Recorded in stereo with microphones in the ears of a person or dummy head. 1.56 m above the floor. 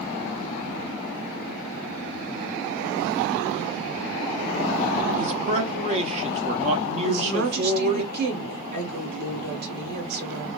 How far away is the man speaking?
About 1.1 m.